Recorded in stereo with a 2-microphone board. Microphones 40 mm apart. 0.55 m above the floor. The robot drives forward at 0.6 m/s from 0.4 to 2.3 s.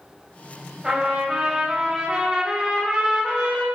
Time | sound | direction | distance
0.8 | a trumpet | 15° right (ahead or behind) | 2.5 m